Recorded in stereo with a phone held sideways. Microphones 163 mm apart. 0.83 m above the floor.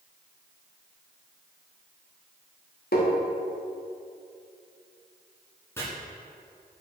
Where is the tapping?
75° left (ahead or behind), 1.1 m.